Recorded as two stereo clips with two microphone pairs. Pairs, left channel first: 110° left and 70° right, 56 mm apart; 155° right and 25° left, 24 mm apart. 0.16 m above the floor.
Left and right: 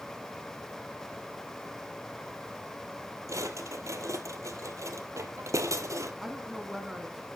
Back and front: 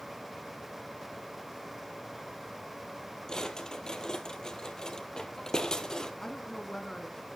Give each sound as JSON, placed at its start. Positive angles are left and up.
{"t": 3.3, "sound": "a drawer", "azimuth_deg": -90, "distance_m": 1.7}
{"t": 6.2, "sound": "a woman speaking", "azimuth_deg": -145, "distance_m": 1.5}